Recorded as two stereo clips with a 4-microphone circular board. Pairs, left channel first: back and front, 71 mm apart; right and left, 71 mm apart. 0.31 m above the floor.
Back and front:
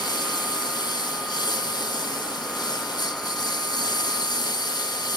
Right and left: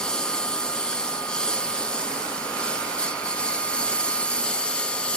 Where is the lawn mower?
170° right; by 5.2 s 165° right.